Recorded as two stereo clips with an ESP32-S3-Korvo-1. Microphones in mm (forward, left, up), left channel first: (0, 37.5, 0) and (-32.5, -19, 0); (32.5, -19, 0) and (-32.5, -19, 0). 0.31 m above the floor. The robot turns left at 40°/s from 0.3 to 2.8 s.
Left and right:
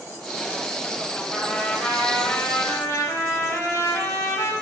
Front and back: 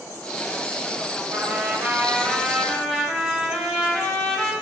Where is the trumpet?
150° left, 0.8 m; by 4.5 s 90° left, 0.8 m.